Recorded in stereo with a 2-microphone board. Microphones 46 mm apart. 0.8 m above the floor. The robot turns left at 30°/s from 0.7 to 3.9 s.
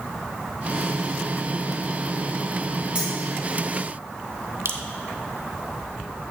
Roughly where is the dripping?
Right.